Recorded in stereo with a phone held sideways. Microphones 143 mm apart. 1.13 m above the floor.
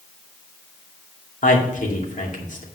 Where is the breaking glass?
No breaking glass in this recording.